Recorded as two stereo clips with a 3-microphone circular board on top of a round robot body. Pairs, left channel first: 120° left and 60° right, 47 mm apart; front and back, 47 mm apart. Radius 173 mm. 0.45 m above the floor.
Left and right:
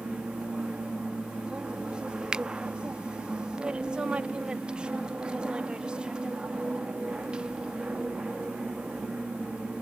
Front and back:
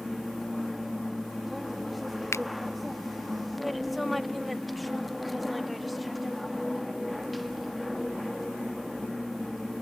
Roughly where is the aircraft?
Right.